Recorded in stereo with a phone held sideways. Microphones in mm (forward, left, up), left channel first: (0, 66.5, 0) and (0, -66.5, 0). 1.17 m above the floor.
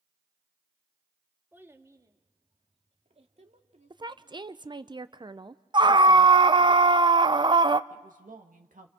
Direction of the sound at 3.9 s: 35° right (ahead or behind).